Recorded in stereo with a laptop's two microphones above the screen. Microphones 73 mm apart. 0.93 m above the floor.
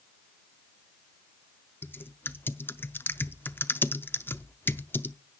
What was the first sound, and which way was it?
Typing on a keyboard, 30° left (ahead or behind).